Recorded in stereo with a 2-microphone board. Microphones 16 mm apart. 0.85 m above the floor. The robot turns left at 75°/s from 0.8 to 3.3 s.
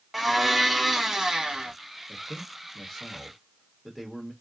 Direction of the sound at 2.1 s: 75° left.